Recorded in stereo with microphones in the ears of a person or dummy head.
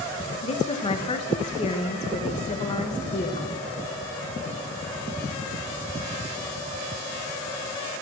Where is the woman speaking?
30° left (ahead or behind), 1.1 m.